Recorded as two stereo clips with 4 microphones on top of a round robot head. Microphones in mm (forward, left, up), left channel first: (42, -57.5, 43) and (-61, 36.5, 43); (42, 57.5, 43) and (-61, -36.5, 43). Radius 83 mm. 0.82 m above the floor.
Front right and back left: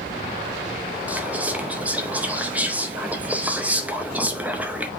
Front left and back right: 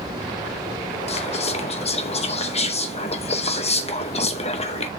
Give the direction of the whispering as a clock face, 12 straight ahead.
10 o'clock.